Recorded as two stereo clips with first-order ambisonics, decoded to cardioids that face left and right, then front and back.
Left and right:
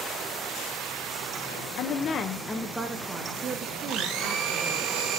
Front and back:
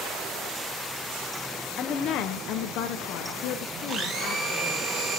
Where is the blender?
115° right, 1.2 m.